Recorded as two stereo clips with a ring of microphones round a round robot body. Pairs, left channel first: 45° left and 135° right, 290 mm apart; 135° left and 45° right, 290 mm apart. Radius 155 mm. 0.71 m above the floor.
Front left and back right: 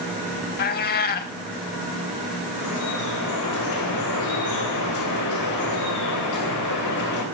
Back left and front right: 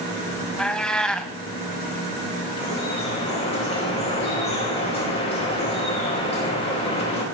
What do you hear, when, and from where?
0.6 s a cat meowing: 50° left, 0.6 m
2.6 s dripping: 65° left, 4 m